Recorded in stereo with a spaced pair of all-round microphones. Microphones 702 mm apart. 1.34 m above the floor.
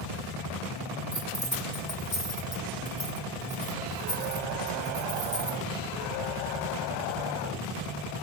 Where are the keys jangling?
80° left, 2.5 m.